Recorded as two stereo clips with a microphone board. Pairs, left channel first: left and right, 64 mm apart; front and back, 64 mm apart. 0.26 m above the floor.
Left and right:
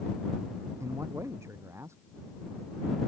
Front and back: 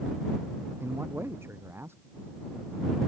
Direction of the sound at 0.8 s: 130° right.